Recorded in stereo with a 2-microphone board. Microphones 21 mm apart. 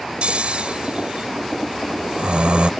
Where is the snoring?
70° right (ahead or behind).